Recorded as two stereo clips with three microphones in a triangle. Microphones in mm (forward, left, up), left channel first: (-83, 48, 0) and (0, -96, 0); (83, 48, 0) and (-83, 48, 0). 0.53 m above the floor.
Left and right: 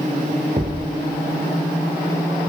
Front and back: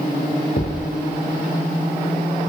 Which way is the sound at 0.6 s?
15° right.